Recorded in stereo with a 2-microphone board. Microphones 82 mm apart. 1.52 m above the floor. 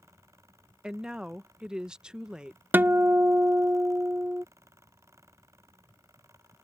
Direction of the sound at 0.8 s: 10° right (ahead or behind).